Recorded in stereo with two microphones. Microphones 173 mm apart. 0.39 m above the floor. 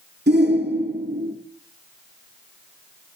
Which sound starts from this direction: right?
A shout, at 0.3 s.